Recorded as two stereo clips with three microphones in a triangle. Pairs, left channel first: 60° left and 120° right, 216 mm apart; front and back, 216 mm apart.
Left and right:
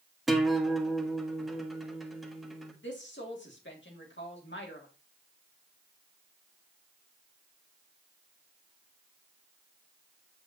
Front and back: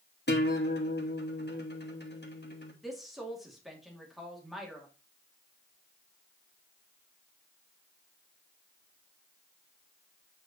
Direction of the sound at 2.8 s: 90° left.